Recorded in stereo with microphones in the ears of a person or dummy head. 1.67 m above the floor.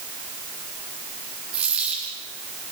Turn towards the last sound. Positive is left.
turn(degrees=-55)  # may be behind; listen again after turning